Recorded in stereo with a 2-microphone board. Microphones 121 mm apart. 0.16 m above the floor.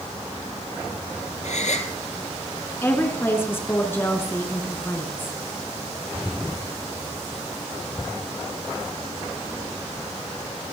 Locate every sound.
1.4 s a gasp: 70° left (ahead or behind), 1.5 m
2.8 s a woman speaking: 20° left (ahead or behind), 2 m